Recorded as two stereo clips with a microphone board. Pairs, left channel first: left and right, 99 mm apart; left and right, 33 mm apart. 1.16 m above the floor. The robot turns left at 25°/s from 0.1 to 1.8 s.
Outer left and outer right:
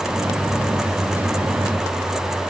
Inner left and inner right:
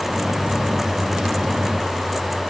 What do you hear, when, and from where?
Only background noise.